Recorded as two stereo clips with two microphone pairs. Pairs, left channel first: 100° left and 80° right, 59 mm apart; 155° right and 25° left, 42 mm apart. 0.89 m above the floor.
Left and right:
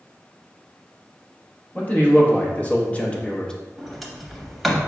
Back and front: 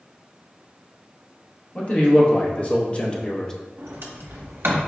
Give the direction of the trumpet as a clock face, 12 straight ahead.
No trumpet in this recording.